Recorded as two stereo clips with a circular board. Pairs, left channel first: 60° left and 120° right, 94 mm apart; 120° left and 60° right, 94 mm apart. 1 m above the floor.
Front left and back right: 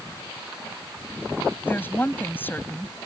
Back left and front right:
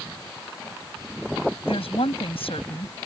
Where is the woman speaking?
130° left.